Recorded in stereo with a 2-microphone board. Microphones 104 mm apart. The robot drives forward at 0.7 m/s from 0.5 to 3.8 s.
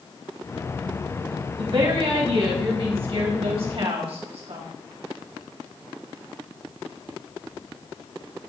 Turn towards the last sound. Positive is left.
turn(degrees=-70)  # may be behind; listen again after turning